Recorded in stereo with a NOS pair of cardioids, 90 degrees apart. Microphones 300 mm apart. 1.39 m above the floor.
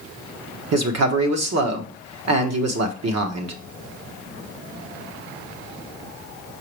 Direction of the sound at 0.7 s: 55° right.